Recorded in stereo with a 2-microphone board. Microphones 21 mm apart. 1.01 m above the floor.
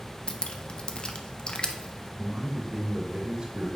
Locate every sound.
0.3 s dripping: 45° left (ahead or behind), 0.5 m
2.2 s a man speaking: 50° right (ahead or behind), 2.5 m